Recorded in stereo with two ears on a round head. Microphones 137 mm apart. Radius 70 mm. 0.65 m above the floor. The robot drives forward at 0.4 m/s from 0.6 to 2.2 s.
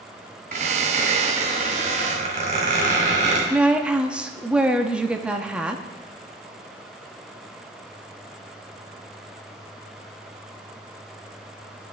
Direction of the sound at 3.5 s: 5° right (ahead or behind).